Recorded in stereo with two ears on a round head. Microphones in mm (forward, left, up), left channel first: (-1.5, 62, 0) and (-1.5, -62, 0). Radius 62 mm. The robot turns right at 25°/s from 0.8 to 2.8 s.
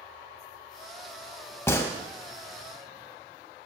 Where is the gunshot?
20° left (ahead or behind), 0.7 m; by 1.9 s 25° left (ahead or behind), 0.7 m.